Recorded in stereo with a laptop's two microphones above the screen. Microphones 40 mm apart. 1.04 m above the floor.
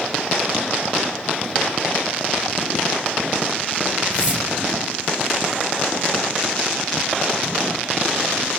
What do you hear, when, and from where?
4.1 s a whoosh: 15° right (ahead or behind), 3 m